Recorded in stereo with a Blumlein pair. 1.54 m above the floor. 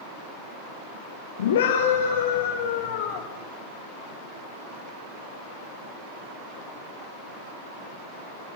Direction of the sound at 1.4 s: 60° left.